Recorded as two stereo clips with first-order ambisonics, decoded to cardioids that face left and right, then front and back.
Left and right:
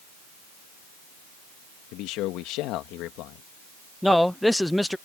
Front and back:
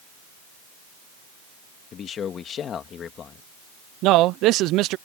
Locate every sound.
1.9 s a man speaking: 60° left
4.0 s a man speaking: 175° left